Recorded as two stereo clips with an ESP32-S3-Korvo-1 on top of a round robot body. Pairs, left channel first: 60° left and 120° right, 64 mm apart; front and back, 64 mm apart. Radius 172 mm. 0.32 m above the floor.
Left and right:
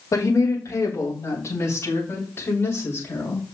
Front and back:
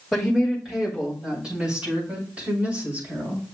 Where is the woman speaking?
90° left, 3 m; by 3.5 s 120° left, 5 m.